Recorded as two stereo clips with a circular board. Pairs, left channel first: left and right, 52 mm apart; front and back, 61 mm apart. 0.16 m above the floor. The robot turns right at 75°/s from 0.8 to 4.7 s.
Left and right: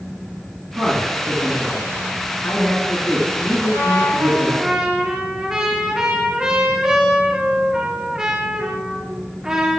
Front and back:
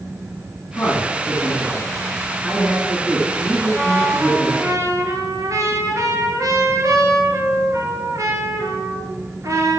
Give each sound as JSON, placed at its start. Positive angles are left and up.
{"t": 0.8, "sound": "a man speaking", "azimuth_deg": -50, "distance_m": 2.0}
{"t": 3.7, "sound": "a trumpet", "azimuth_deg": 120, "distance_m": 1.9}